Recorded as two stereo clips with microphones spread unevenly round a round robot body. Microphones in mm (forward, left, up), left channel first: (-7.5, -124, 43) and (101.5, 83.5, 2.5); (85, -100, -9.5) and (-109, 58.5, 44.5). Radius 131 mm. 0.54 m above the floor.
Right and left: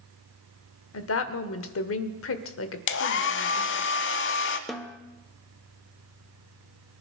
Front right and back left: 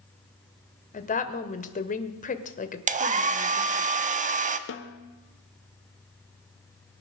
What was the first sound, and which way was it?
A woman speaking, 90° right.